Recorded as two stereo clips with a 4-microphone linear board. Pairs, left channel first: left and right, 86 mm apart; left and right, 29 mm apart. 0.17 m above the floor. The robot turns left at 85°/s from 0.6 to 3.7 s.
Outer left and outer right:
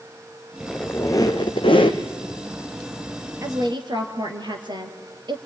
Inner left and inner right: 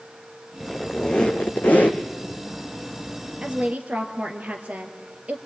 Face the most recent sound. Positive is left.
turn(degrees=-60)  # may be behind; listen again after turning